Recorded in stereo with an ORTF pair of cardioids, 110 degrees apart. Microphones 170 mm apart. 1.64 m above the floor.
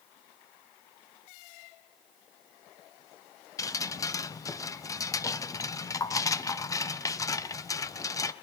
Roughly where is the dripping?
Ahead.